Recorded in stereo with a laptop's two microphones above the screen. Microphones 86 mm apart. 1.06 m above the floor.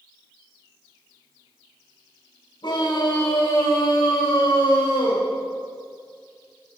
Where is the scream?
60° left (ahead or behind), 7.5 m; by 5.2 s 70° left (ahead or behind), 5 m.